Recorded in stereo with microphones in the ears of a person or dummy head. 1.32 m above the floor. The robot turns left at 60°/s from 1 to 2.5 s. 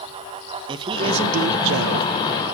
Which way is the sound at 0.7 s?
25° right.